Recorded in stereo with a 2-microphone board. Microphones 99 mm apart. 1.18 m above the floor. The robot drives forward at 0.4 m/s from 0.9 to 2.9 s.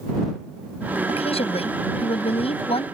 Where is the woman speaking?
75° left (ahead or behind); by 2.9 s 70° left (ahead or behind).